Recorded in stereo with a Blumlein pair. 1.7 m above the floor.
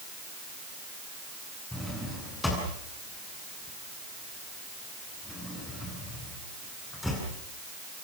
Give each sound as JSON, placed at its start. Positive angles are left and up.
{"t": 1.7, "sound": "a drawer", "azimuth_deg": 5, "distance_m": 8.5}